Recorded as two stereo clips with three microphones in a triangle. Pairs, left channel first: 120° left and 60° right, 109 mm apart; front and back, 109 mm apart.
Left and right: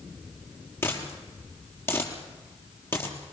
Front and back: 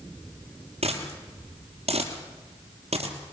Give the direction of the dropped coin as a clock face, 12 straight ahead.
6 o'clock.